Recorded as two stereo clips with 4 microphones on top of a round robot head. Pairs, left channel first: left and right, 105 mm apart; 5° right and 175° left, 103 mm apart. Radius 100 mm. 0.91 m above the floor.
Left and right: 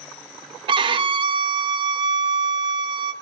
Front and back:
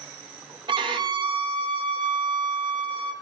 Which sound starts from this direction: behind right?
A violin, at 0.7 s.